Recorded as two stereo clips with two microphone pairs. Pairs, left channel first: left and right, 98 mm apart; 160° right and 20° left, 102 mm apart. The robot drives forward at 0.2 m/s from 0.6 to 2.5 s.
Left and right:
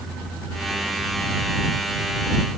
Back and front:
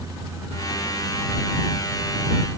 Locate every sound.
Only background noise.